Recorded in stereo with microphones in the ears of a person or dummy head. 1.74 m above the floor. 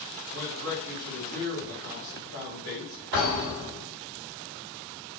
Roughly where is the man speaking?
Right.